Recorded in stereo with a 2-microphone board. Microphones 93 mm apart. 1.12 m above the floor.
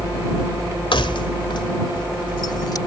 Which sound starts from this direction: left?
Keys jangling, at 0.9 s.